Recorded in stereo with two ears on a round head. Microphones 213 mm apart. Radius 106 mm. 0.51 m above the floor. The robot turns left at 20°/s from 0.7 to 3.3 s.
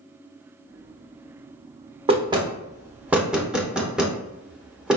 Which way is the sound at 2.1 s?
25° right (ahead or behind).